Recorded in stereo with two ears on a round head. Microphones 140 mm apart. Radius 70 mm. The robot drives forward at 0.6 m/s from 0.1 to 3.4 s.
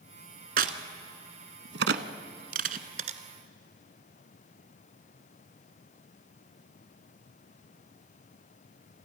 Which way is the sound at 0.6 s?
55° right (ahead or behind).